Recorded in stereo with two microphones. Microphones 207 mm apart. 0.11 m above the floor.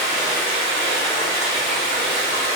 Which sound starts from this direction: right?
Running water, at 0.0 s.